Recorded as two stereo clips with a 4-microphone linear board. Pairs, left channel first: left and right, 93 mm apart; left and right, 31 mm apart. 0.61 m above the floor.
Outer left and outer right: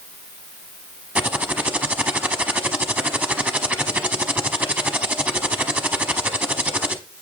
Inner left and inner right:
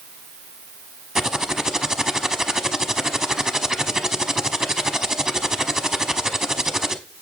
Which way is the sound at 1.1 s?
20° right (ahead or behind).